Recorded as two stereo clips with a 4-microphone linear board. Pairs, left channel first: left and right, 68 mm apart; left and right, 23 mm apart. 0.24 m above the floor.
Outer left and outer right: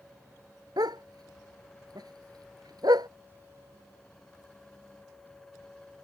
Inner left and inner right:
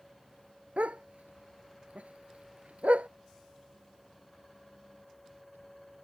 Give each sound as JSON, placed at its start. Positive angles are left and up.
{"t": 0.8, "sound": "a dog barking", "side_deg": -80}